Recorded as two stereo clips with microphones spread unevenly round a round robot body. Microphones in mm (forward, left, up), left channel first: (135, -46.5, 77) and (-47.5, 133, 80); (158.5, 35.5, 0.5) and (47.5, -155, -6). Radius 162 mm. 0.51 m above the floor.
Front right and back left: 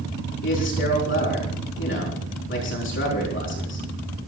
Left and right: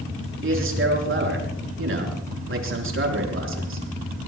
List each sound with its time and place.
0.4 s a man speaking: 95° right, 5.5 m